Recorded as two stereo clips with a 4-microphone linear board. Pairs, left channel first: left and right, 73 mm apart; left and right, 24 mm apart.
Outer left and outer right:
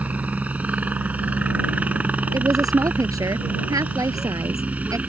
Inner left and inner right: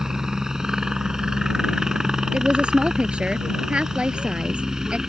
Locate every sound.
0.0 s a helicopter: 20° right (ahead or behind)
2.3 s a woman speaking: 55° right (ahead or behind)